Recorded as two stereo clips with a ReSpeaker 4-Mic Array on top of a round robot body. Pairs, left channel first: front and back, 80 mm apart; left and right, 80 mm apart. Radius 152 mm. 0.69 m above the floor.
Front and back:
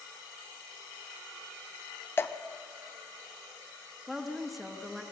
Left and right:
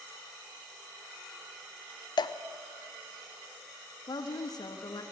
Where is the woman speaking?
90° left, 1.3 m.